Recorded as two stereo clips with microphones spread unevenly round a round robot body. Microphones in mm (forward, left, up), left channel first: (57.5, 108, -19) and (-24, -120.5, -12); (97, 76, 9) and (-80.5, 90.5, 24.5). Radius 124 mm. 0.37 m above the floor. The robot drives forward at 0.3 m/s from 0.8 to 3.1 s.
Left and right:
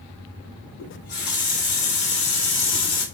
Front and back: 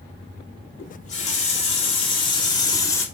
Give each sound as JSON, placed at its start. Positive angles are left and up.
{"t": 0.8, "sound": "a running tap", "azimuth_deg": 30, "distance_m": 1.4}